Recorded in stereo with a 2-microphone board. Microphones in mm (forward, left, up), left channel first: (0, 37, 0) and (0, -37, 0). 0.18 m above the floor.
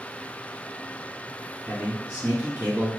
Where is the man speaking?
20° right (ahead or behind), 1.9 m.